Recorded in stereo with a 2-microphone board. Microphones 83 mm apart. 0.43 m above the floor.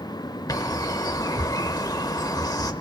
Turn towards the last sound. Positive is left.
turn(degrees=50)  # may be behind; listen again after turning